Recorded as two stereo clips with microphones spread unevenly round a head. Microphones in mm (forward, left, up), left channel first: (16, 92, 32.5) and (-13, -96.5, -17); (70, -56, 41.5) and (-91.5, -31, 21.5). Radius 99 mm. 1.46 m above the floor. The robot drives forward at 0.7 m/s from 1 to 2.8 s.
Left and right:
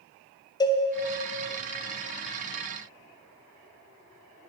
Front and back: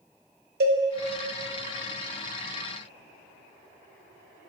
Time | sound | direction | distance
0.6 | a cowbell | 130° left | 0.8 m